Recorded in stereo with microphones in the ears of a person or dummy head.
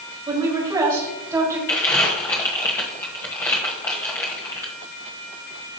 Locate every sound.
0.3 s a woman speaking: 25° right (ahead or behind), 2.5 m; by 1.6 s 20° right (ahead or behind), 3.5 m
1.7 s crumpling: 10° left (ahead or behind), 1.4 m